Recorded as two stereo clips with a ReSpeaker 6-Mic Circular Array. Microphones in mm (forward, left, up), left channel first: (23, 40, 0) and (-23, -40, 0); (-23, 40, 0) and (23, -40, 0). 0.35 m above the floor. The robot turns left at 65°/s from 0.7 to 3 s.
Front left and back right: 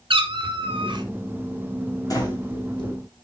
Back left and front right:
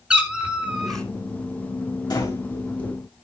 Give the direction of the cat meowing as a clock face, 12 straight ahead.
5 o'clock.